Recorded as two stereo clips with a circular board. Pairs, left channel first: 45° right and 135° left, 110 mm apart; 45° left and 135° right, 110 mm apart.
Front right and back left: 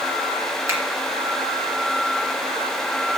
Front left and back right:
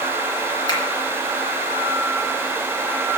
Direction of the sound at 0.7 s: 75° left.